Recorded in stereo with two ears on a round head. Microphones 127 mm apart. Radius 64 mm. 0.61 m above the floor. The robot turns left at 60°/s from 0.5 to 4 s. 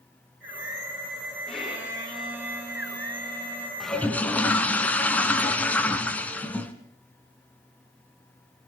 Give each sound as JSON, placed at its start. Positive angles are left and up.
{"t": 1.5, "sound": "a violin", "azimuth_deg": 10, "distance_m": 10.0}
{"t": 3.8, "sound": "a toilet flushing", "side_deg": 0, "distance_m": 2.0}